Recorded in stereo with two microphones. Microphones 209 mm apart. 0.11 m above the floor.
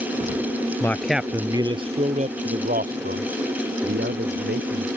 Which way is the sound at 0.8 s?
15° left (ahead or behind).